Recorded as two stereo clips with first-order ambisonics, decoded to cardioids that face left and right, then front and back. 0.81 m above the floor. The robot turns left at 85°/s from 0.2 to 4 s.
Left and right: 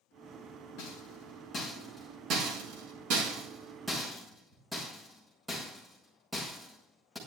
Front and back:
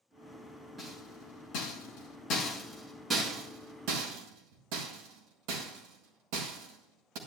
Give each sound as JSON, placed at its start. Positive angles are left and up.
{"t": 0.8, "sound": "a rattle", "azimuth_deg": 95, "distance_m": 6.0}